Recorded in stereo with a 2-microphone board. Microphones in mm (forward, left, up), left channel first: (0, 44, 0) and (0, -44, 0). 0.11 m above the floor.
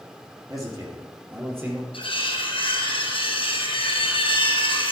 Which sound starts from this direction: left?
Cutlery clinking, at 1.9 s.